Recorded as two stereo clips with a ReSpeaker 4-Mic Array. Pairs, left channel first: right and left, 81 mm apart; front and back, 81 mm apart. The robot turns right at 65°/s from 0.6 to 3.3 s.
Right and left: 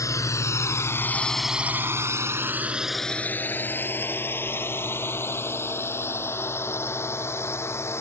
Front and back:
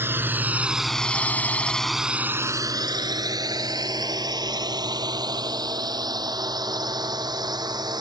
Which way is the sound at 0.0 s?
125° right.